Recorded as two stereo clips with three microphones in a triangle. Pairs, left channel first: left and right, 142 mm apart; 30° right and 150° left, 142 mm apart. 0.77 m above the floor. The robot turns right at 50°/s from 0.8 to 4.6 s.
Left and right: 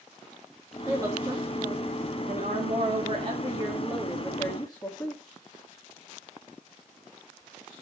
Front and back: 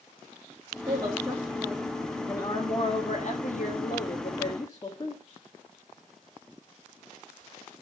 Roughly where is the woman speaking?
Behind.